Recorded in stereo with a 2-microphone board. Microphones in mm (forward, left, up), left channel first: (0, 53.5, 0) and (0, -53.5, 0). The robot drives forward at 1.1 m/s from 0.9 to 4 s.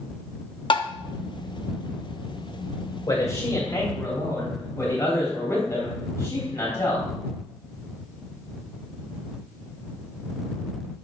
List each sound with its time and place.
0.7 s tapping: 55° left (ahead or behind), 0.6 m; by 0.9 s 50° left (ahead or behind), 0.6 m
3.1 s a man speaking: 35° left (ahead or behind), 3 m; by 7.1 s 25° left (ahead or behind), 3.5 m